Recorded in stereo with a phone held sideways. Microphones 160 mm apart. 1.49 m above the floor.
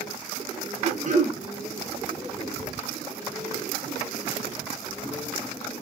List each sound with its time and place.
0.8 s throat clearing: 55° right (ahead or behind), 1.0 m